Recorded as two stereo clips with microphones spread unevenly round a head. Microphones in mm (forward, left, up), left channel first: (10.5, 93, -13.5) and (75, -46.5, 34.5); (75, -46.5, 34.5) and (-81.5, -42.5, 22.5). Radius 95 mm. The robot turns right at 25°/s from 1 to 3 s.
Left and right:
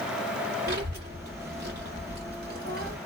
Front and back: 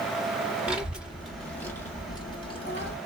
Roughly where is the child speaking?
Right.